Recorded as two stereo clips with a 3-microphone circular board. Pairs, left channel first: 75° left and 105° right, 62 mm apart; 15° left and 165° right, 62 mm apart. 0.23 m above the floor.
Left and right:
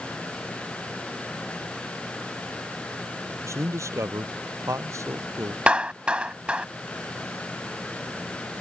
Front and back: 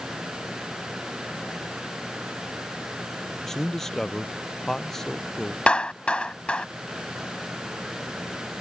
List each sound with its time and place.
3.4 s a man speaking: 70° right
5.7 s a clap: 45° right